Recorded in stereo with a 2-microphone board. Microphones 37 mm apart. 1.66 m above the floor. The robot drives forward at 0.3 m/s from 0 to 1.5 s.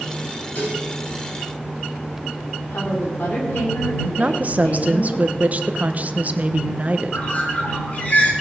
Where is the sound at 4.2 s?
45° right (ahead or behind), 1.1 m.